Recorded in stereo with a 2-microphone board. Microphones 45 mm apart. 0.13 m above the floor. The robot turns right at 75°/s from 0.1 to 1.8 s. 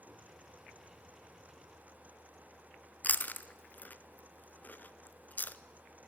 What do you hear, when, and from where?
3.0 s chewing: 45° left (ahead or behind), 0.5 m